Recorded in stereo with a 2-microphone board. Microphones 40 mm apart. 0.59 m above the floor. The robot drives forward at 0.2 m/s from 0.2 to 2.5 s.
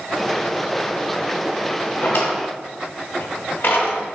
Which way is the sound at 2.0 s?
65° left (ahead or behind).